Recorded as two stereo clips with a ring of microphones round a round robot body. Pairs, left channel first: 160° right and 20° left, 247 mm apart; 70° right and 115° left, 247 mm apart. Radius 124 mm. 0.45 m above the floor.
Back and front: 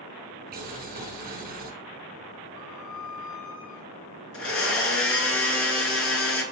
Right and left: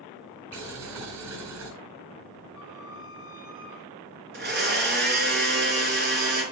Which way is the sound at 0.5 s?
75° left.